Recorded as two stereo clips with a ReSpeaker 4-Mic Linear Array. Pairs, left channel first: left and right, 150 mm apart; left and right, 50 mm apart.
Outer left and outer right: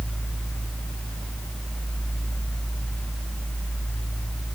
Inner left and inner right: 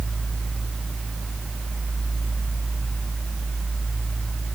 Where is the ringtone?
No ringtone in this recording.